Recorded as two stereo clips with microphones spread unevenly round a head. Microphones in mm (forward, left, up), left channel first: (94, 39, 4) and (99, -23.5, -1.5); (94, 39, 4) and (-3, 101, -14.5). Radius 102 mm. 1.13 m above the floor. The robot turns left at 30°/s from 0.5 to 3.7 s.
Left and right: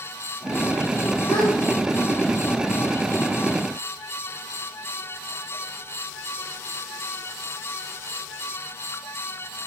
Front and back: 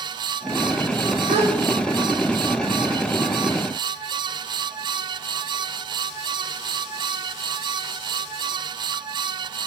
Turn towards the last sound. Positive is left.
turn(degrees=50)